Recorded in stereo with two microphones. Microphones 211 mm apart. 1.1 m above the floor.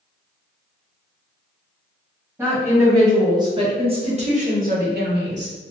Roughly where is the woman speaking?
Centre.